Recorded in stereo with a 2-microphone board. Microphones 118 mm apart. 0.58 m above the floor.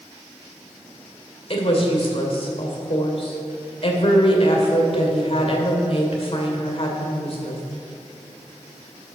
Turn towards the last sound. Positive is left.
turn(degrees=50)  # may be behind; listen again after turning